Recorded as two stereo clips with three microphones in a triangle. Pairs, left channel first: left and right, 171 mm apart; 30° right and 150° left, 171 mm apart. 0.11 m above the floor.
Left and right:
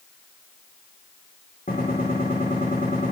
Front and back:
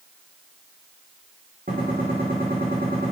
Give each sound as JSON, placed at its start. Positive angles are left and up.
{"t": 1.7, "sound": "a gunshot", "azimuth_deg": 120, "distance_m": 5.0}